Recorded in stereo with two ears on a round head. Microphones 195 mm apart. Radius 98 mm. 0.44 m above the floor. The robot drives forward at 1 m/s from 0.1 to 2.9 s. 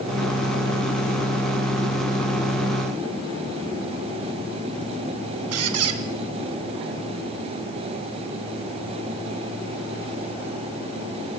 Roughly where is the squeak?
Right.